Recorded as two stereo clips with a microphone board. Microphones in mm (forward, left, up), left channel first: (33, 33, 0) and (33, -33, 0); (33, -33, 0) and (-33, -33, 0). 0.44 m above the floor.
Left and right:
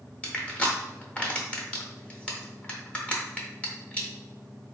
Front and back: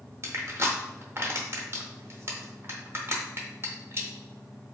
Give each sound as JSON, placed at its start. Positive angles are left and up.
{"t": 0.2, "sound": "crushing", "azimuth_deg": 155, "distance_m": 0.7}